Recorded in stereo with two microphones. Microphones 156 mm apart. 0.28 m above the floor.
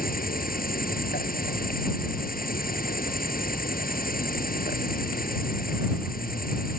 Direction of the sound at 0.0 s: 70° left (ahead or behind).